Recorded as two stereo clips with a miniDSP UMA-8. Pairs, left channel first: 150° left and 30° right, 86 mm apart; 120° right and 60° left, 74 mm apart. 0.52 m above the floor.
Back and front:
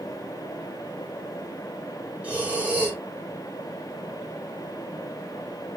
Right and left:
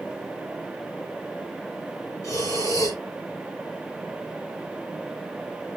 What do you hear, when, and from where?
2.2 s breathing: 100° right, 2.0 m